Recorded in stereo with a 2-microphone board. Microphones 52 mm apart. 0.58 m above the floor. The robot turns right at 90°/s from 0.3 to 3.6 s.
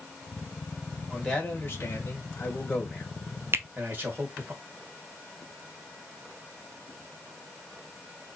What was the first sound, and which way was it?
A man speaking, 5° right.